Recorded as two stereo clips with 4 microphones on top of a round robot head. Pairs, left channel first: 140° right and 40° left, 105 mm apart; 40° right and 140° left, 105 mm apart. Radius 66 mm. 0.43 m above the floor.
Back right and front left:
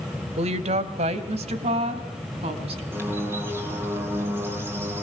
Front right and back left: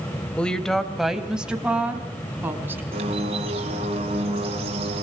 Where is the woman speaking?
40° left, 1.9 m; by 2.8 s 70° left, 4 m.